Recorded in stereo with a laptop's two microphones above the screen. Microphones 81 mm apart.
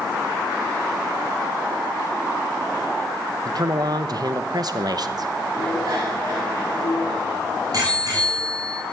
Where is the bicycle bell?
50° right (ahead or behind), 5.5 m.